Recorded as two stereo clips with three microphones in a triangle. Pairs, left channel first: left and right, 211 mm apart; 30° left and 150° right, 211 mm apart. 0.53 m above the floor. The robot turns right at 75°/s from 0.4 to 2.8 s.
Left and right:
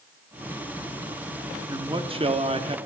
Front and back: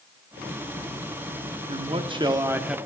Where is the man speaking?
145° right, 0.7 m; by 2.8 s 65° right, 0.7 m.